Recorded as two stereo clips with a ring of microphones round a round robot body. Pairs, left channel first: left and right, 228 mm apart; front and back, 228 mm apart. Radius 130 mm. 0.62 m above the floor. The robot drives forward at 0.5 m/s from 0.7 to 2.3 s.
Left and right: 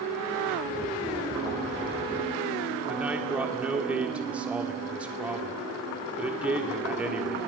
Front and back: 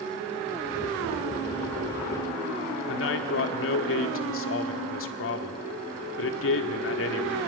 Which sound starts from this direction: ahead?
A man speaking, at 2.9 s.